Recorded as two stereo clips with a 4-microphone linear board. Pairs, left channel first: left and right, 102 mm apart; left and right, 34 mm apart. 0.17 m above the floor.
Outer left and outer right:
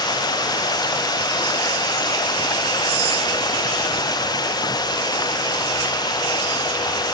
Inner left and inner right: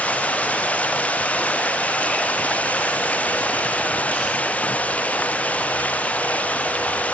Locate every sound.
0.0 s running water: 40° left (ahead or behind)